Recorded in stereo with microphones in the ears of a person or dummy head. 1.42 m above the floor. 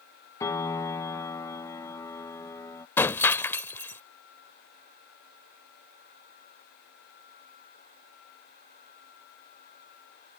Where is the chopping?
No chopping in this recording.